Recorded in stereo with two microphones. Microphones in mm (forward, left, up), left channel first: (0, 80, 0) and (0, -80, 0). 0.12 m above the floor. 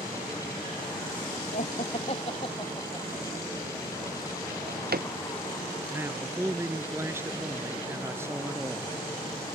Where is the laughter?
55° left (ahead or behind); by 4.3 s 10° left (ahead or behind).